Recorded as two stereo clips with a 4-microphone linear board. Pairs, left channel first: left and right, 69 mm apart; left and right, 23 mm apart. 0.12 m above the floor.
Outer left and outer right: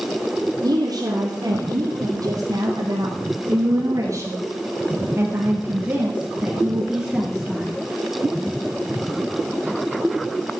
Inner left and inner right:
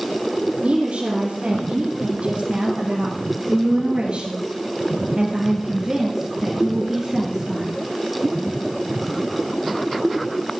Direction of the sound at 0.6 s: 65° right (ahead or behind).